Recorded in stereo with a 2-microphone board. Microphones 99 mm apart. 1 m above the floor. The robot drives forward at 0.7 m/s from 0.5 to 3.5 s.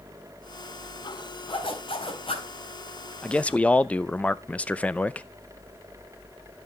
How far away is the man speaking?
About 0.7 m.